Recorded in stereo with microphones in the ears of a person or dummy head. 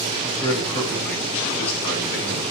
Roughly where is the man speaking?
Centre.